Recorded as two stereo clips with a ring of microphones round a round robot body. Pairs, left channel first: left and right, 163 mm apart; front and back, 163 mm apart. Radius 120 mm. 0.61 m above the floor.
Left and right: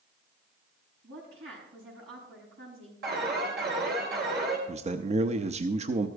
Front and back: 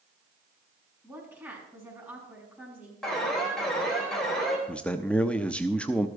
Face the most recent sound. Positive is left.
turn(degrees=-80)